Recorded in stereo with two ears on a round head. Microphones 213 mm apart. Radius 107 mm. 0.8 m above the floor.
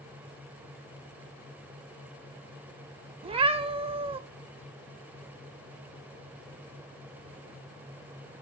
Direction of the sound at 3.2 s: 25° right (ahead or behind).